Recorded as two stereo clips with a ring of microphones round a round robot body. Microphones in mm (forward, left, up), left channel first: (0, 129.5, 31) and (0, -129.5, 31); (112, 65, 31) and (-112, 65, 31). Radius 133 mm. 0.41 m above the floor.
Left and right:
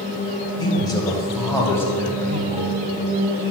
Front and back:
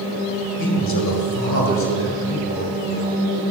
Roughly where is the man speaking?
Ahead.